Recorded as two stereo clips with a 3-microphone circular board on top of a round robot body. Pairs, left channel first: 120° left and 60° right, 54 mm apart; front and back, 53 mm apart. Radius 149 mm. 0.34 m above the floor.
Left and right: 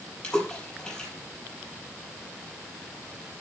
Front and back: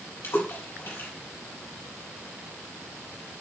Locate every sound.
0.2 s a splash: 40° left, 5.5 m